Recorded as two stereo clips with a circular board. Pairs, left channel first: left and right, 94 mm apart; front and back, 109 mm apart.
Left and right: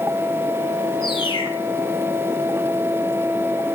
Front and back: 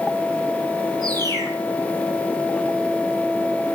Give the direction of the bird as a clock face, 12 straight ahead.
8 o'clock.